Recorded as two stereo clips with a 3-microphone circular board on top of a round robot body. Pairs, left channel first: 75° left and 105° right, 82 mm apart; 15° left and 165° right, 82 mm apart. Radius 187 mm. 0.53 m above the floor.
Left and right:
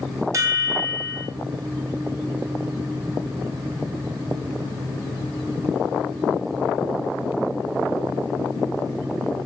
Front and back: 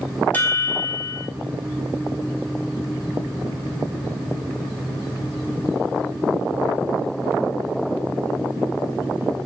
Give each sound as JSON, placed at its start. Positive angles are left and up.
{"t": 0.3, "sound": "a chime", "azimuth_deg": -50, "distance_m": 0.6}